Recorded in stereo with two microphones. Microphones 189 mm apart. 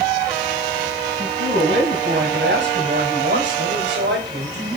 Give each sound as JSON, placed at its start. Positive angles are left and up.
{"t": 1.2, "sound": "a man speaking", "side_deg": -70, "distance_m": 5.5}